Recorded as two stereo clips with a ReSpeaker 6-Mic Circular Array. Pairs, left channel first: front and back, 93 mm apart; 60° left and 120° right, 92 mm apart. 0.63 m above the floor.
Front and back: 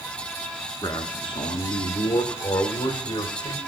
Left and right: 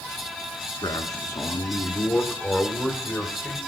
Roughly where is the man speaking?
Ahead left.